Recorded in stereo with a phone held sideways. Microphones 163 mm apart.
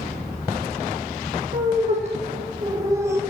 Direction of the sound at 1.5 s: 50° right (ahead or behind).